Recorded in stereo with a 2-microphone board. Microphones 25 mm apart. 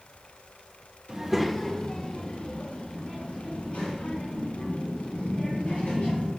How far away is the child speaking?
About 0.8 m.